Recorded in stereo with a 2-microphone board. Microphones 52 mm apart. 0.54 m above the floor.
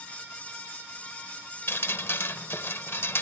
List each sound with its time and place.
1.7 s dripping: 55° left (ahead or behind)